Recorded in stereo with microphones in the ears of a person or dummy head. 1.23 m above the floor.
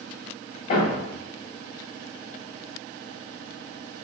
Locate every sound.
0.7 s a thud: 45° left (ahead or behind), 1.2 m